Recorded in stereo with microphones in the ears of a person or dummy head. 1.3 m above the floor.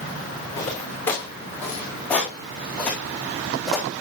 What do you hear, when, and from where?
0.6 s footsteps: 15° left (ahead or behind), 5.5 m; by 3.9 s centre (ahead or behind), 3.5 m